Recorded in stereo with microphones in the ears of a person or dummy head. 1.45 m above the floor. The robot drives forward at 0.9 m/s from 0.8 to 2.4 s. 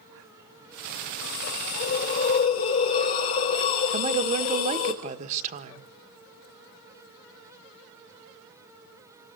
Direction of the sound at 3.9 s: 35° right (ahead or behind).